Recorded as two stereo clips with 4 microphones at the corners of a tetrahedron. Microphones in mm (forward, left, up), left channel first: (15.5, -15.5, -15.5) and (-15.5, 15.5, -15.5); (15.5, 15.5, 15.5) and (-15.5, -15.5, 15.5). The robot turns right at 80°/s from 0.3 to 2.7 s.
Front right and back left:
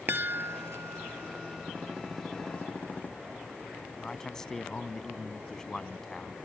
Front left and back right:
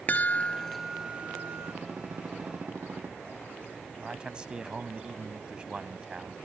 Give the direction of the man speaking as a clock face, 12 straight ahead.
3 o'clock.